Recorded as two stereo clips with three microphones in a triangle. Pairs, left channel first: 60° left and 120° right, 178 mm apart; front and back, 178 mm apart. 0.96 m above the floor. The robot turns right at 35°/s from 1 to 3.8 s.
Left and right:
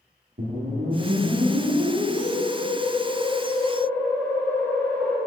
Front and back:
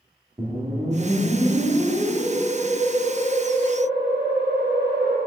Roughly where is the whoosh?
Behind right.